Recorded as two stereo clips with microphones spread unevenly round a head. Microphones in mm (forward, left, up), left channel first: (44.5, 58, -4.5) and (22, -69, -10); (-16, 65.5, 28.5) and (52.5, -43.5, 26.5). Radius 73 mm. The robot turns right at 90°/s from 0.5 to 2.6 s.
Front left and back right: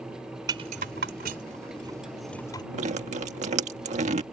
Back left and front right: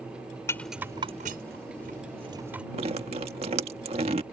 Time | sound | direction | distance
0.5 | a rattle | 165° right | ?
2.7 | dripping | 105° right | ?